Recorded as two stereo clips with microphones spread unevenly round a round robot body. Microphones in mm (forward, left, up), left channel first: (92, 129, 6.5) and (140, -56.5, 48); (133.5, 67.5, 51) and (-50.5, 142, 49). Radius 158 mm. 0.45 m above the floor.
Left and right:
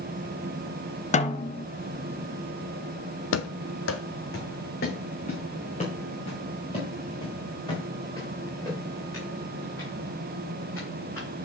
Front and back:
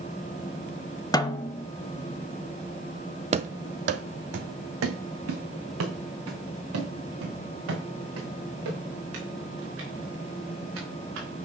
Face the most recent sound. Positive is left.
turn(degrees=-170)